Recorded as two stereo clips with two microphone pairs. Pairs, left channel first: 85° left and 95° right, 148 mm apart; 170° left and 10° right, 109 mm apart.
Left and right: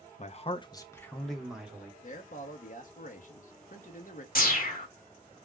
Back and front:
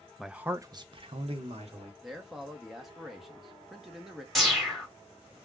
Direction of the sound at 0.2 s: 80° left.